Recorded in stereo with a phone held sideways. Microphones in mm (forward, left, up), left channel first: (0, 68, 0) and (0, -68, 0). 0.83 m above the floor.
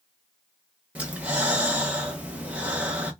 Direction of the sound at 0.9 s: 10° right (ahead or behind).